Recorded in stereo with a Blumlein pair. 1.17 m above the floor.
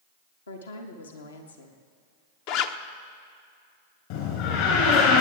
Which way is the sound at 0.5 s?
70° left.